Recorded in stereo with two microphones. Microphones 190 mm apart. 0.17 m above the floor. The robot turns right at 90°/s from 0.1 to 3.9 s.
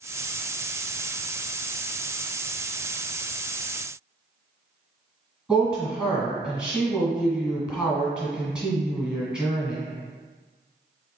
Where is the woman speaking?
5° right (ahead or behind), 1.4 m.